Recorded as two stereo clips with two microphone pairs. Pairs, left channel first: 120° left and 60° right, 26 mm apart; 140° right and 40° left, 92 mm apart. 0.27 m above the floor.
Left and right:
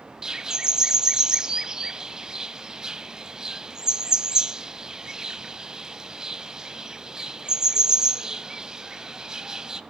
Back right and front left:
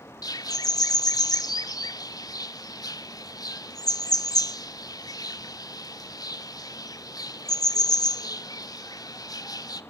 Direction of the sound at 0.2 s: 120° right.